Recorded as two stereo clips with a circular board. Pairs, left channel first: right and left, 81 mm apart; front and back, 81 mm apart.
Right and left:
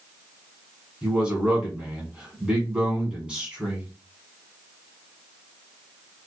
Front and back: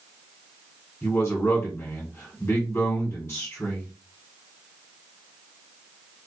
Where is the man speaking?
30° left, 1.2 m.